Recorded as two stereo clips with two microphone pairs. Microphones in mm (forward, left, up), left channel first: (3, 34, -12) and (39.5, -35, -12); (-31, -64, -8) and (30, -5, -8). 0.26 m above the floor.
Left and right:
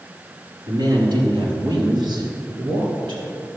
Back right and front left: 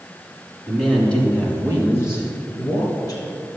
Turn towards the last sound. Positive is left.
turn(degrees=-90)